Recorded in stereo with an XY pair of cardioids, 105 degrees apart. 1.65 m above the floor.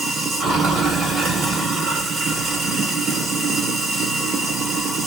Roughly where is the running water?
Ahead right.